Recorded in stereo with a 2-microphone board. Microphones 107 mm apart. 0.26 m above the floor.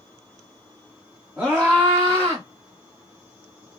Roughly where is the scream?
Centre.